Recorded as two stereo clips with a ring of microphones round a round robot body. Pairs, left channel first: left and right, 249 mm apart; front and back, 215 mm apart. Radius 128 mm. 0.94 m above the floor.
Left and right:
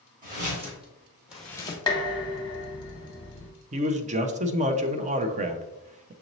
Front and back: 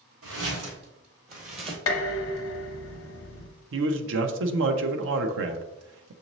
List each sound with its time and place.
0.2 s footsteps: 145° right, 2.0 m; by 1.8 s 135° left, 1.0 m
1.9 s dishes clattering: 15° left, 0.7 m
3.7 s a man speaking: 150° right, 0.5 m